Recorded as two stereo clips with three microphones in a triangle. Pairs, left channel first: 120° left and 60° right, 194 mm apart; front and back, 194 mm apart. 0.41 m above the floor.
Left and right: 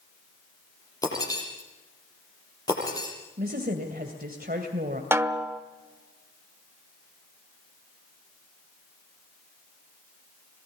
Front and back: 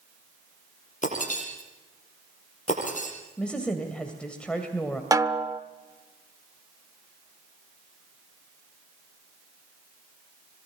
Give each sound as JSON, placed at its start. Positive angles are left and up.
{"t": 1.0, "sound": "breaking glass", "azimuth_deg": 50, "distance_m": 7.5}
{"t": 3.4, "sound": "a woman speaking", "azimuth_deg": -85, "distance_m": 2.0}
{"t": 5.1, "sound": "a snare drum", "azimuth_deg": -125, "distance_m": 1.0}